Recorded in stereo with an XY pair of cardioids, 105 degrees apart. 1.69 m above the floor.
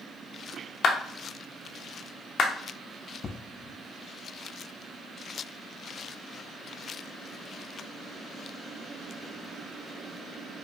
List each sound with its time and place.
0.8 s a clap: 60° left, 0.7 m
3.2 s an explosion: 40° left, 0.6 m